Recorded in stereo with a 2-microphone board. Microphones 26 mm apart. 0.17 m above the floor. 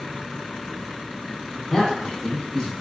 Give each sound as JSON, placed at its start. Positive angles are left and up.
{"t": 1.7, "sound": "a man speaking", "side_deg": 25, "distance_m": 1.3}